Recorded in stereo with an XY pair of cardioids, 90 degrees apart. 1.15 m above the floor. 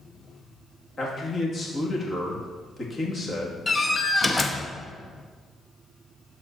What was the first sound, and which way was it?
A man speaking, 35° left.